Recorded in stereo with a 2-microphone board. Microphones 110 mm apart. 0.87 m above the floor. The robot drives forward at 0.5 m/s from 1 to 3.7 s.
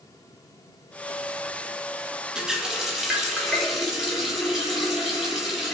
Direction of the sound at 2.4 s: 5° right (ahead or behind).